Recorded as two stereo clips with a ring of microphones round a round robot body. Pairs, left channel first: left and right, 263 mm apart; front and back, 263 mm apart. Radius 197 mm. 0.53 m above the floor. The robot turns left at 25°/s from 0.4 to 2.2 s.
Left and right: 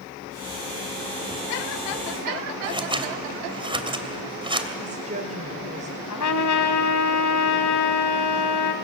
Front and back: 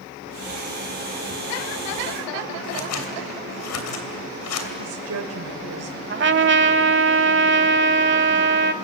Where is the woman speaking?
155° right, 2 m.